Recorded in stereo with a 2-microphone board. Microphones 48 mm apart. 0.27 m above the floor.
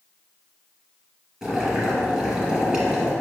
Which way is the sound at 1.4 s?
15° right (ahead or behind).